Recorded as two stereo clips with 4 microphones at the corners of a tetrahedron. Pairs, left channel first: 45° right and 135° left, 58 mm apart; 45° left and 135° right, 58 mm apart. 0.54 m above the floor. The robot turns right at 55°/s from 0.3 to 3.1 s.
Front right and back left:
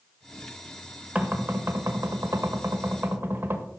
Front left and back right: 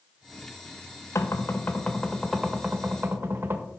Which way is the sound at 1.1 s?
75° left.